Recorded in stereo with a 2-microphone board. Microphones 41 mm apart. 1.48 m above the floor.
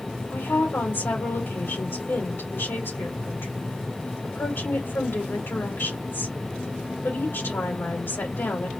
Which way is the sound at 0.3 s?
70° left (ahead or behind).